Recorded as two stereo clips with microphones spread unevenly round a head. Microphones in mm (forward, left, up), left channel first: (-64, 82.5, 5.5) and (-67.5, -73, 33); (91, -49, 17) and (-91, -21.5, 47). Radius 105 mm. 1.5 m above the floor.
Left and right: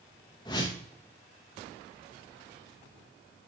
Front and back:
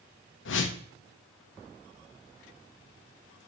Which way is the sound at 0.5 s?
15° left.